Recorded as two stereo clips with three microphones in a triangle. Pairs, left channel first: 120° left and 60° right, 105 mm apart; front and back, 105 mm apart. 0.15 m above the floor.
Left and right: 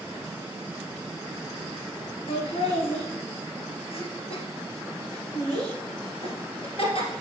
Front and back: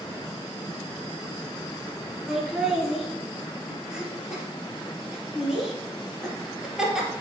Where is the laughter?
95° left, 2.5 m.